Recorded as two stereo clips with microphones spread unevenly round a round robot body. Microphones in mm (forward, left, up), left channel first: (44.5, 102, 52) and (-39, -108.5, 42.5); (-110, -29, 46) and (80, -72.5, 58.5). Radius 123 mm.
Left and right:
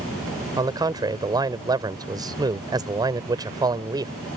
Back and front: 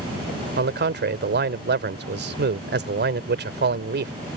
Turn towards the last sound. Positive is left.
turn(degrees=-40)